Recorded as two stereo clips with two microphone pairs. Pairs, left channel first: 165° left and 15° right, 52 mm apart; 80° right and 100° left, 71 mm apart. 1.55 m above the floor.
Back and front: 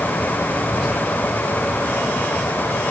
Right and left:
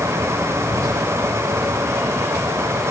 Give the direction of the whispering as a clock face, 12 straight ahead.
10 o'clock.